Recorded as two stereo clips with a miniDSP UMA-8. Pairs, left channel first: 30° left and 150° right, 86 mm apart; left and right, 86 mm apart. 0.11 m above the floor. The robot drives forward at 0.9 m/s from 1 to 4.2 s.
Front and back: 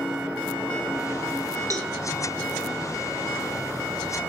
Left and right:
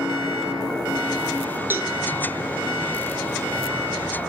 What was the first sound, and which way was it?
A cowbell, 145° right.